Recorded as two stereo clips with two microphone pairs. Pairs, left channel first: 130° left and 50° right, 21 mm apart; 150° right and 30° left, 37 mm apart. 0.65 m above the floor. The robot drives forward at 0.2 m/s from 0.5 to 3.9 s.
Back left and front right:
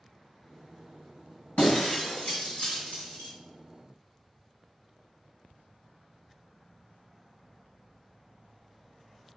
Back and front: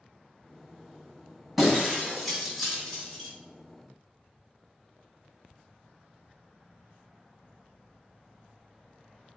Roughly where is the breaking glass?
Behind left.